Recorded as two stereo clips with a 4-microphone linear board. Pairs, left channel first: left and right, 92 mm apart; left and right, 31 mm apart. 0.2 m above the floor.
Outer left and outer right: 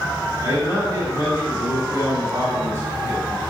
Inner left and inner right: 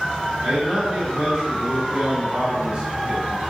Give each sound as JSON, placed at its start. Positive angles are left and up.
{"t": 0.4, "sound": "a man speaking", "side_deg": -35, "distance_m": 1.9}